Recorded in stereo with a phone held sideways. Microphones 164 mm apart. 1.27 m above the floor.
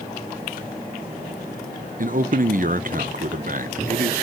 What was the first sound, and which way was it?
A man speaking, 55° right (ahead or behind).